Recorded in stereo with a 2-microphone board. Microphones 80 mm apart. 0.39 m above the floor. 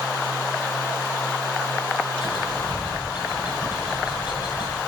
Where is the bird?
70° left (ahead or behind), 9.5 m.